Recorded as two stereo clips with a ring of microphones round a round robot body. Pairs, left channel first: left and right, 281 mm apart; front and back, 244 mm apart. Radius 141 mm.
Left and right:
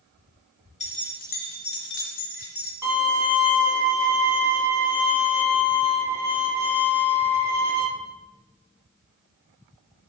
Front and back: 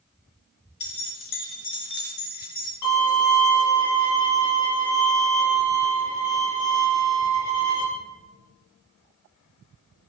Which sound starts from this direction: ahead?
A violin, at 2.8 s.